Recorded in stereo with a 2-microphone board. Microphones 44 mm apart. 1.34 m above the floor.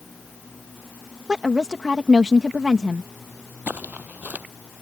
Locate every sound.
1.3 s a woman speaking: 20° right (ahead or behind)
3.7 s footsteps: 40° right (ahead or behind)